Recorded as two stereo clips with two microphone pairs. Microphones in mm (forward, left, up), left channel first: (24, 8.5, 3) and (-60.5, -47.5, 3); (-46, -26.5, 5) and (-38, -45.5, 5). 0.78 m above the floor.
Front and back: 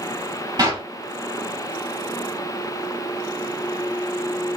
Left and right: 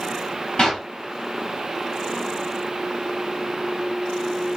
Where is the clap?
170° left, 2.5 m.